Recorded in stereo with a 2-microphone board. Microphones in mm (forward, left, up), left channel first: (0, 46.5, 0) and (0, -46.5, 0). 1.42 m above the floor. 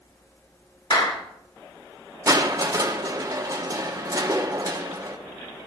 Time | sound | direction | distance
0.9 | a clap | 45° left (ahead or behind) | 2.0 m
2.3 | crushing | 35° right (ahead or behind) | 0.9 m